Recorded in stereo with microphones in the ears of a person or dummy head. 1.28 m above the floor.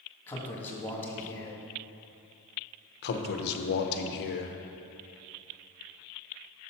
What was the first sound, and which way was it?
A man speaking, 10° left (ahead or behind).